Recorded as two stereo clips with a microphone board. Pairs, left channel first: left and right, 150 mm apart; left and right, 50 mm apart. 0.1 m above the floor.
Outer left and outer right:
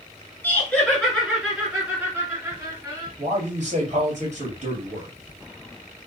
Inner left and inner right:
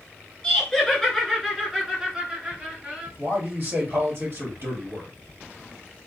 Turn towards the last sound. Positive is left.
turn(degrees=-55)  # may be behind; listen again after turning